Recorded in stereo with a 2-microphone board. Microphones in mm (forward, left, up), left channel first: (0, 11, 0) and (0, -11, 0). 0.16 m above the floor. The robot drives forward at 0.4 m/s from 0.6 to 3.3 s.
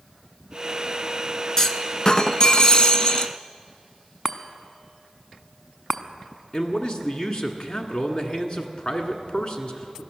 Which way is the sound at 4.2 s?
5° left (ahead or behind).